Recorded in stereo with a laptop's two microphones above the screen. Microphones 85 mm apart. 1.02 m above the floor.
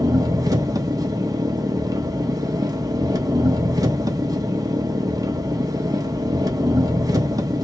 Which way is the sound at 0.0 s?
45° right (ahead or behind).